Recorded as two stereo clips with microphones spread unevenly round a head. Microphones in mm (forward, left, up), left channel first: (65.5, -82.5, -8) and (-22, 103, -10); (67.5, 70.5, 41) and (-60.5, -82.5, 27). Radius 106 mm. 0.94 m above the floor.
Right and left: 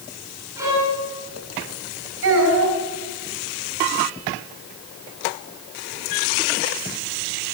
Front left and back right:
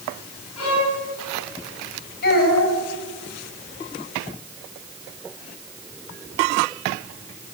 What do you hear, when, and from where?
0.6 s a violin: 40° left, 9 m
2.2 s a child speaking: 90° left, 5 m